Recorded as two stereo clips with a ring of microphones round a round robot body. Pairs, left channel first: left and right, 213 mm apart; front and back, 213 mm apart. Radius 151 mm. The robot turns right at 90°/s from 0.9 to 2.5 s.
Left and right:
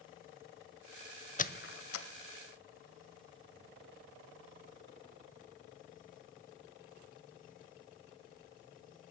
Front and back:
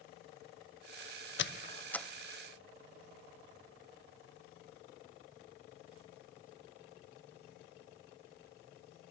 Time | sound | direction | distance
1.4 | a squeak | 35° left | 0.5 m